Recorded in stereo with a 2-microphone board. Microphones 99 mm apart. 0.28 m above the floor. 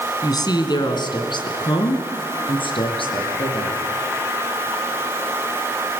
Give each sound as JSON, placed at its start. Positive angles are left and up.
{"t": 0.2, "sound": "a woman speaking", "side_deg": 45, "distance_m": 2.5}